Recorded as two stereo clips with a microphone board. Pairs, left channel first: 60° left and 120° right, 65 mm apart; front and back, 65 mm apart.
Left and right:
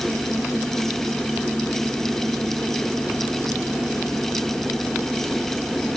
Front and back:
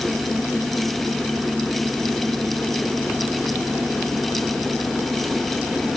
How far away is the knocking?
No knocking in this recording.